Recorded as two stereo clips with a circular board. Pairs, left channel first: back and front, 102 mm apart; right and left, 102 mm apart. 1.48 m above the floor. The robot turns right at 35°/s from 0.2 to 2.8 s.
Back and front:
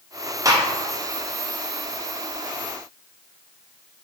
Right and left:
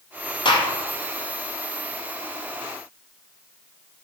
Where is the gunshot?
55° right, 0.5 m; by 0.7 s 50° right, 0.5 m.